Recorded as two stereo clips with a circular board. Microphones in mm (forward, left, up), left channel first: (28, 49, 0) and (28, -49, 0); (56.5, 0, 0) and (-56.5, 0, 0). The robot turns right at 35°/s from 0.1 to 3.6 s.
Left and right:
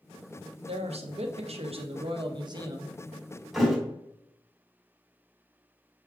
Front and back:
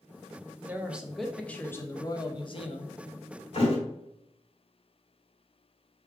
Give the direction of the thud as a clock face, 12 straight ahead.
12 o'clock.